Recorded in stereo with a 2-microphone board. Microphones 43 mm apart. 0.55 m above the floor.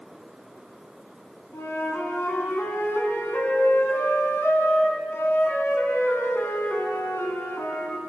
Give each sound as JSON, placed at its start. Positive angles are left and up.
{"t": 1.5, "sound": "a flute", "side_deg": 75, "distance_m": 3.5}